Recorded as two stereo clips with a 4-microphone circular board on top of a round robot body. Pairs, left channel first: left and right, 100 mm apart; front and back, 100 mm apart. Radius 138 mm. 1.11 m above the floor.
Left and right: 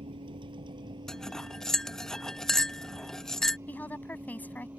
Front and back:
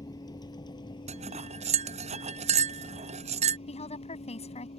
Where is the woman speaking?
15° left.